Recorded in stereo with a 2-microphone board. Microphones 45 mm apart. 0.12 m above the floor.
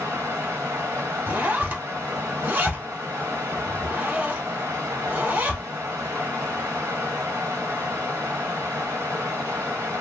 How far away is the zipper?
About 1.4 m.